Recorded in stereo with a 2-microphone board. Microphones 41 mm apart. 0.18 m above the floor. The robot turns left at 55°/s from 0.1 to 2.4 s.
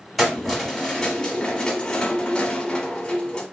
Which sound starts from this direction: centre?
Keys jangling, at 0.2 s.